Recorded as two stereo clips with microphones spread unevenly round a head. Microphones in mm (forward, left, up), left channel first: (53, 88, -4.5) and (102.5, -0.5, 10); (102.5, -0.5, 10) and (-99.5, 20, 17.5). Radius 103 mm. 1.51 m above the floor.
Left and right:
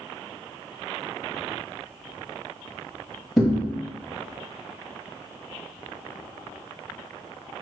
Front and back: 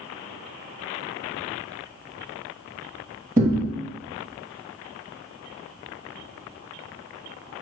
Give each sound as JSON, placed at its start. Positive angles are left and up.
{"t": 3.4, "sound": "a thud", "azimuth_deg": -130, "distance_m": 1.4}